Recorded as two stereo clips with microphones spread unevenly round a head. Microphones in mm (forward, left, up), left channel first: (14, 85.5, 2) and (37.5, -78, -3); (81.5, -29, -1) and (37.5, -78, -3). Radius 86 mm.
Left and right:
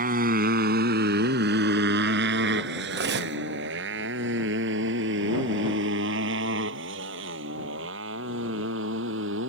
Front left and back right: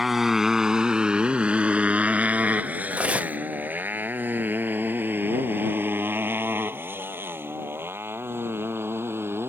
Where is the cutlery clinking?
60° right.